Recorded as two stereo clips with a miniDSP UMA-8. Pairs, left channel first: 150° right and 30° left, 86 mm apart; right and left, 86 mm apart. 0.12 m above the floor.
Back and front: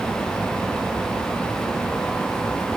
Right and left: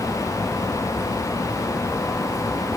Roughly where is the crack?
No crack in this recording.